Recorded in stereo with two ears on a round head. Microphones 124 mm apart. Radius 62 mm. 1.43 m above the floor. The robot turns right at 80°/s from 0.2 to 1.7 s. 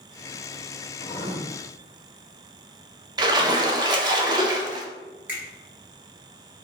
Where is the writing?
145° left, 1.1 m; by 1.4 s 175° left, 1.1 m.